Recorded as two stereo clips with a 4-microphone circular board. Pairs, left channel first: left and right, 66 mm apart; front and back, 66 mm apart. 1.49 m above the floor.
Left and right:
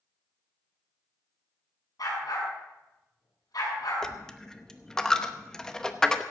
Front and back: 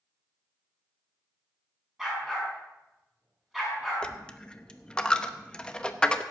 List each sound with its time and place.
2.0 s a dog barking: 95° left, 6.5 m
4.0 s a dropped coin: 35° left, 0.8 m